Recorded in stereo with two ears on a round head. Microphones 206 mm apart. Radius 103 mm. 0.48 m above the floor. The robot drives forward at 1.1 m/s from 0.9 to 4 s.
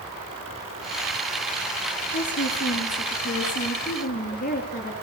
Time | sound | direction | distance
2.1 | a woman speaking | 55° left (ahead or behind) | 5.5 m